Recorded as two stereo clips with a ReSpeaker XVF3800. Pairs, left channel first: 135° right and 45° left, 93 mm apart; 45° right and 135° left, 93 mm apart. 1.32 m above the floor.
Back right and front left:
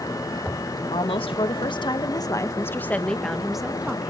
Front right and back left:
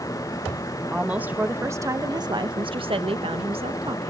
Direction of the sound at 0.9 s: 145° right.